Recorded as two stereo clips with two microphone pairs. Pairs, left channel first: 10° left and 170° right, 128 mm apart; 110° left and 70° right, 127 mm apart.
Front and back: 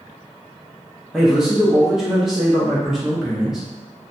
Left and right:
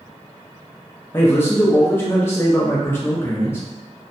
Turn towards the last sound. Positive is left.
turn(degrees=115)